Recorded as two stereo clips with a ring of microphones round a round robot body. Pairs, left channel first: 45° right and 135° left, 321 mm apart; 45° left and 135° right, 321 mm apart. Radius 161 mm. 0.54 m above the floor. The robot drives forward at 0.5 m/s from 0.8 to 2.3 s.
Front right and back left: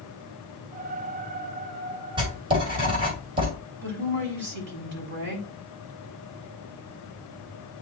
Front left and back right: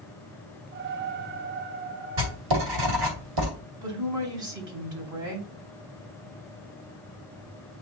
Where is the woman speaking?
170° right, 4 m.